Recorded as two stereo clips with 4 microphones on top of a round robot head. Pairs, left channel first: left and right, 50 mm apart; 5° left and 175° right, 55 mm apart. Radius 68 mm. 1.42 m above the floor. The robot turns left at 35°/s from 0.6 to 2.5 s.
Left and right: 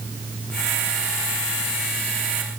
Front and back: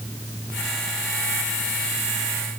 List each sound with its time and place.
Only background noise.